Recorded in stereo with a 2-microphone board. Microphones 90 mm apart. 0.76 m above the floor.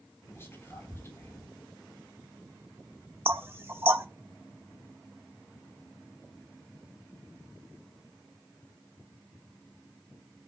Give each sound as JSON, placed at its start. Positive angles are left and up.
{"t": 0.3, "sound": "whispering", "side_deg": 25, "distance_m": 4.0}
{"t": 3.2, "sound": "knocking", "side_deg": -25, "distance_m": 1.0}